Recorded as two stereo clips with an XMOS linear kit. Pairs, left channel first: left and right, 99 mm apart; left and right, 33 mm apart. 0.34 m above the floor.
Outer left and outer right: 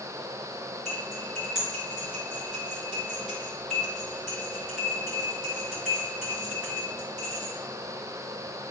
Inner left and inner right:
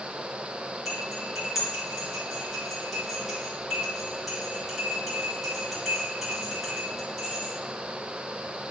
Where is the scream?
I don't hear a scream.